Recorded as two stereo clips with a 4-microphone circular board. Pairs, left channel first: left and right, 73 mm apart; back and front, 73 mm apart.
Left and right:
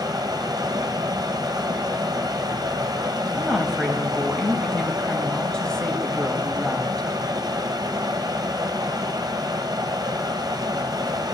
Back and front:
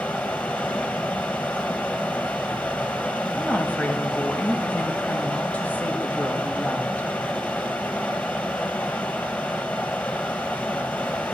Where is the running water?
110° right, 1.1 m.